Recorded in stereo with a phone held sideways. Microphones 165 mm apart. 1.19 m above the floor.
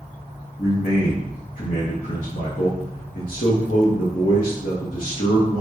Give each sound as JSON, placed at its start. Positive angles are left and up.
{"t": 0.6, "sound": "a man speaking", "side_deg": 65, "distance_m": 0.7}